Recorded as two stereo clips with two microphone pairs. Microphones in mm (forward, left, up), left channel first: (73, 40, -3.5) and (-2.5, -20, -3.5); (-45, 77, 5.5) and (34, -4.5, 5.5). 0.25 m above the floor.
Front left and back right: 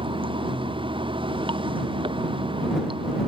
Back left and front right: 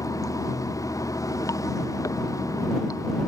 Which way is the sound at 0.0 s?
165° right.